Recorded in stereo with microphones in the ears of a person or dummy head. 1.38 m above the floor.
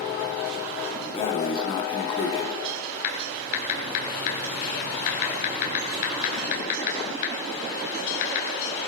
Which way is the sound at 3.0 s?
55° left (ahead or behind).